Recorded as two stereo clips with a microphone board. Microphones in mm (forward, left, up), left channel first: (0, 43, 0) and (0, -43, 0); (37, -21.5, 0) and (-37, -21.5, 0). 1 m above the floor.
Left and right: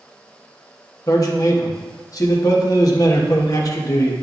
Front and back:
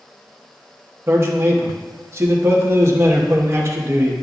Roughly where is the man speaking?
Behind left.